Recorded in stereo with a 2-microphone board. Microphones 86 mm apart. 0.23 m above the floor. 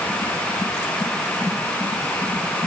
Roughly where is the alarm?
I don't hear an alarm.